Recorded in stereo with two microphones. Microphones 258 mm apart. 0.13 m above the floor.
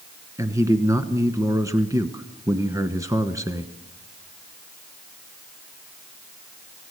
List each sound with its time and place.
0.4 s a man speaking: 10° right (ahead or behind), 1.1 m